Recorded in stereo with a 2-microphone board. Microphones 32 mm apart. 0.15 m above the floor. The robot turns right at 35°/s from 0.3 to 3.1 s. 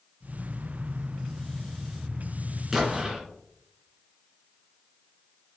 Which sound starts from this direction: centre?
An explosion, at 2.7 s.